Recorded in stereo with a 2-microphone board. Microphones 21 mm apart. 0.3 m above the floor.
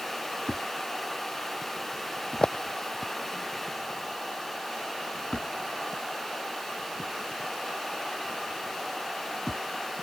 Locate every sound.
0.5 s a thud: 40° left (ahead or behind)